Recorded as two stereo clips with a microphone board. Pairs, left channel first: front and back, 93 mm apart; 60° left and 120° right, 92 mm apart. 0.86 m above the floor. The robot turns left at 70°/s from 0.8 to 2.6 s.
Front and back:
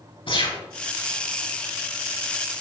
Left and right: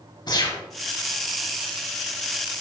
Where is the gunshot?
20° left, 4 m.